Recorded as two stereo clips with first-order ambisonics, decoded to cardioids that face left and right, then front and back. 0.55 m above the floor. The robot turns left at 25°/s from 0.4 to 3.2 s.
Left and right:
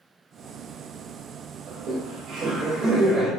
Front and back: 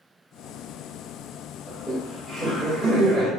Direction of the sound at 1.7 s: 70° right.